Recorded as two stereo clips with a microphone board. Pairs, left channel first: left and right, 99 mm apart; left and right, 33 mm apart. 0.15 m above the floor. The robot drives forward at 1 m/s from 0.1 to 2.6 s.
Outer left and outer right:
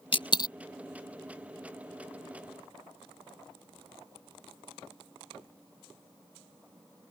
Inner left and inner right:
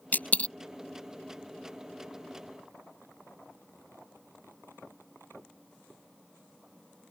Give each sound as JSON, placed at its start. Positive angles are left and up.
{"t": 0.1, "sound": "a dropped coin", "side_deg": 65}